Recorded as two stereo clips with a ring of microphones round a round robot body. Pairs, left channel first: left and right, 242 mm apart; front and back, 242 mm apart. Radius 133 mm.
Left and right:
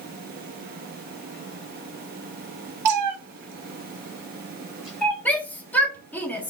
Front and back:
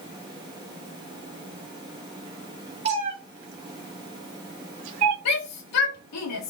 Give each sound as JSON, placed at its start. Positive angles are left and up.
{"t": 2.9, "sound": "a cat meowing", "azimuth_deg": -110, "distance_m": 1.3}
{"t": 5.2, "sound": "a shout", "azimuth_deg": 5, "distance_m": 1.7}